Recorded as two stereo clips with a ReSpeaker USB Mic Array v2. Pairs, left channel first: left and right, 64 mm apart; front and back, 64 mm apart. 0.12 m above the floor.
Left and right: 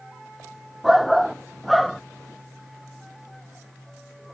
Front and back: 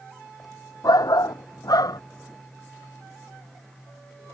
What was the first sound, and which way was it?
A shout, straight ahead.